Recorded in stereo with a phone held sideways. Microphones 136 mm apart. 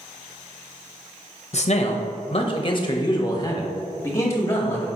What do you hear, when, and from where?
1.5 s a man speaking: 55° left (ahead or behind), 0.7 m; by 4.9 s 20° left (ahead or behind), 2.0 m